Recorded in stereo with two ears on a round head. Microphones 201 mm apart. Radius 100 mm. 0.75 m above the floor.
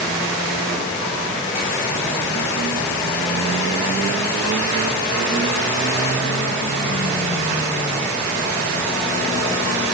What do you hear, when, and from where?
Only background noise.